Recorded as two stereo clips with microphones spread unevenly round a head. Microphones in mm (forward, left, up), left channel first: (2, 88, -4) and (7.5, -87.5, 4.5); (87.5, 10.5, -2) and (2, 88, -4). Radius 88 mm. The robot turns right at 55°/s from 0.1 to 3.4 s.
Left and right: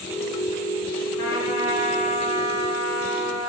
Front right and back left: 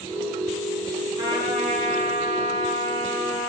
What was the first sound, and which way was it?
A trumpet, 85° left.